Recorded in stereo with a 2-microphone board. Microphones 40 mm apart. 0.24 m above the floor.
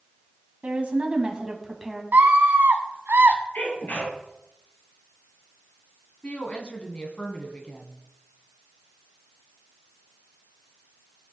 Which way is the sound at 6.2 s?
30° left (ahead or behind).